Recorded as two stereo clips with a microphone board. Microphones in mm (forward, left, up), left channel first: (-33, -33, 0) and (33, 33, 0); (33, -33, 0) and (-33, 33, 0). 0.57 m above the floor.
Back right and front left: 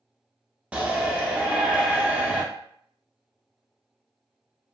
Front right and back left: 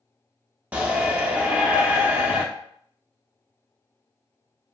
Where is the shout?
100° left, 0.8 m.